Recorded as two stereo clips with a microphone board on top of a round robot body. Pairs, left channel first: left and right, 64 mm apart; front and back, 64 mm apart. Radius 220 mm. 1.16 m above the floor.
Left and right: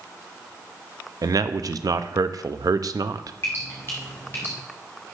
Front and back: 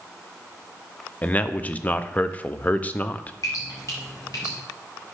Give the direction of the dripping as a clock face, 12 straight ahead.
11 o'clock.